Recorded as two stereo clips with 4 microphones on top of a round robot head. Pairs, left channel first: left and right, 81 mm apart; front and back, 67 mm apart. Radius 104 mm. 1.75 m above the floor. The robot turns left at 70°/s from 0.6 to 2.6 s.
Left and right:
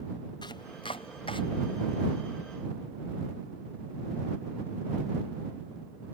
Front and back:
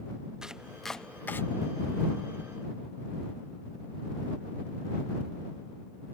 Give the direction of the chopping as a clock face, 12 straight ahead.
9 o'clock.